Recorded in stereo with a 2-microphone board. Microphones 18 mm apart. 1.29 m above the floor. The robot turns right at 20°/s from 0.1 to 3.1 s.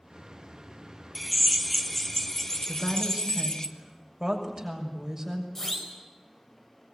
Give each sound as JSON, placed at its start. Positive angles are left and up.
{"t": 1.1, "sound": "a drill", "azimuth_deg": -5, "distance_m": 1.7}
{"t": 2.7, "sound": "a woman speaking", "side_deg": -35, "distance_m": 7.0}
{"t": 5.5, "sound": "a siren", "side_deg": 25, "distance_m": 5.0}